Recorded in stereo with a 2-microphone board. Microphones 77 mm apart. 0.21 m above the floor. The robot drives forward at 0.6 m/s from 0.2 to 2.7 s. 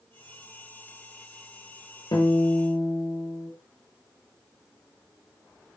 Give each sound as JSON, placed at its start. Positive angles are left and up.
{"t": 2.1, "sound": "a guitar", "side_deg": 70, "distance_m": 1.2}